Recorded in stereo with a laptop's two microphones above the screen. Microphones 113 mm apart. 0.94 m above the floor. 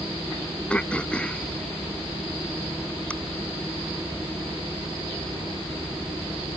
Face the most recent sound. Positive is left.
turn(degrees=10)  # may be behind; listen again after turning